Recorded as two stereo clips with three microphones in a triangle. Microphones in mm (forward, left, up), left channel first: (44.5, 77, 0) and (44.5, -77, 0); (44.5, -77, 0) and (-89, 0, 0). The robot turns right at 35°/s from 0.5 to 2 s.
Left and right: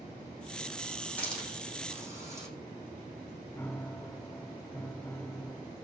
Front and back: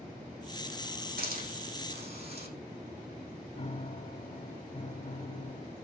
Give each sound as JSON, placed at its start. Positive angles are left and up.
{"t": 1.2, "sound": "a hiss", "azimuth_deg": 170, "distance_m": 9.5}
{"t": 3.6, "sound": "a piano", "azimuth_deg": 10, "distance_m": 0.6}